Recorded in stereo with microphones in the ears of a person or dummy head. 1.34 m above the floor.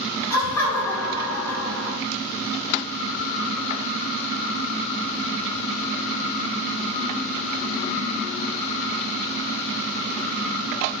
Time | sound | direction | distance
0.3 | laughter | 20° left (ahead or behind) | 1.5 m